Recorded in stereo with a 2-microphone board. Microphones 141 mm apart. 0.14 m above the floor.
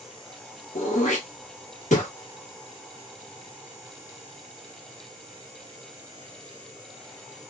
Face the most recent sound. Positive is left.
turn(degrees=60)  # may be behind; listen again after turning